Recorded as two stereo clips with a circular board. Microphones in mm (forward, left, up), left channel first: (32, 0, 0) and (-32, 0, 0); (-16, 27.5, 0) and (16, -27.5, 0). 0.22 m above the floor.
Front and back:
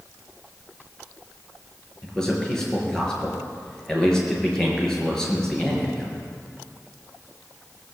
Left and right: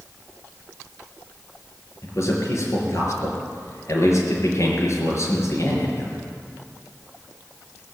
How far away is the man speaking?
About 5 m.